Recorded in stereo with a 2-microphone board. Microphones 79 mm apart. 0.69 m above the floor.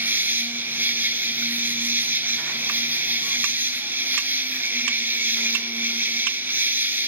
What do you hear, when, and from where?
0.0 s an insect: 30° right (ahead or behind), 1.2 m